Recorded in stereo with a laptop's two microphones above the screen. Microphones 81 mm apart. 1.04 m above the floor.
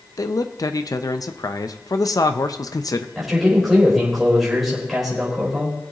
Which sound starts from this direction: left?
A man speaking, at 0.2 s.